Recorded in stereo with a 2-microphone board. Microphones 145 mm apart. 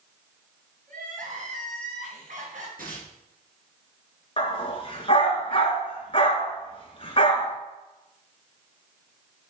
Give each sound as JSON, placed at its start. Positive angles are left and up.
{"t": 0.9, "sound": "crying", "side_deg": -65, "distance_m": 3.0}
{"t": 2.8, "sound": "tearing paper", "side_deg": -80, "distance_m": 3.5}
{"t": 4.4, "sound": "a dog barking", "side_deg": 40, "distance_m": 1.7}